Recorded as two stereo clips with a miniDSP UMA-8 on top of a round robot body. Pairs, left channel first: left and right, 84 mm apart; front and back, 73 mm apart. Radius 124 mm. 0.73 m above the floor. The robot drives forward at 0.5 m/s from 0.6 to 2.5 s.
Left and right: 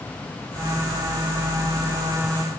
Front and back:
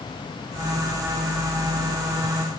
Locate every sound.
Only background noise.